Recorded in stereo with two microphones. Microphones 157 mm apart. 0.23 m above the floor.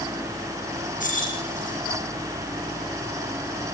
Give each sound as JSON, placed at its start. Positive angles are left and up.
{"t": 1.0, "sound": "keys jangling", "side_deg": 55, "distance_m": 7.0}